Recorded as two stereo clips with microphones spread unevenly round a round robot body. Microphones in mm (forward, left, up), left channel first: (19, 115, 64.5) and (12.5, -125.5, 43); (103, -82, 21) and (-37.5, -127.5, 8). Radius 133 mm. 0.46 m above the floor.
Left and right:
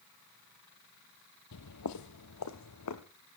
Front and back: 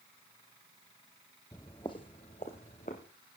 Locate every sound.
1.5 s footsteps: 90° left, 1.0 m; by 3.0 s 80° left, 1.8 m